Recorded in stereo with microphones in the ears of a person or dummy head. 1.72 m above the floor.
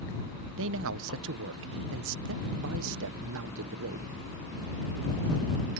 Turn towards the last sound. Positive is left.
turn(degrees=-70)  # may be behind; listen again after turning